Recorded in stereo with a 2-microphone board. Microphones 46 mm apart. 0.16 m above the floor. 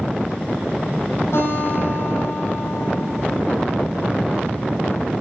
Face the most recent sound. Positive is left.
turn(degrees=65)  # may be behind; listen again after turning